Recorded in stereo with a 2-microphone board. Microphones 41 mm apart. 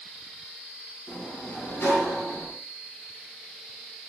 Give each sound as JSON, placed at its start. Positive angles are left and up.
{"t": 1.1, "sound": "a sliding door", "side_deg": 75, "distance_m": 3.5}